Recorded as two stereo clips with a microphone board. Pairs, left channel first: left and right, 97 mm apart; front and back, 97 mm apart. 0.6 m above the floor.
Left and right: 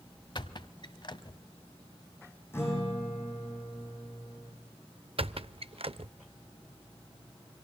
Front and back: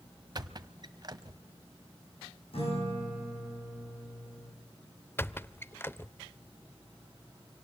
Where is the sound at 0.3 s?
130° left, 0.9 m.